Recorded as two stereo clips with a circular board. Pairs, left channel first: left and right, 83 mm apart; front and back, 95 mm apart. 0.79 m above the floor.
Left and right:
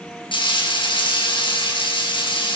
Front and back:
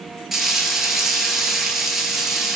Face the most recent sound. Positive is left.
turn(degrees=95)